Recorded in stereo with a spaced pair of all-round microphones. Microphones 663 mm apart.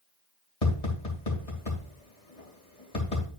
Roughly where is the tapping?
Left.